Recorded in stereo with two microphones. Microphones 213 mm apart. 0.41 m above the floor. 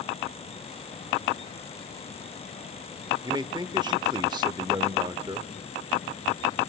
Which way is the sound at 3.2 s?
20° right (ahead or behind).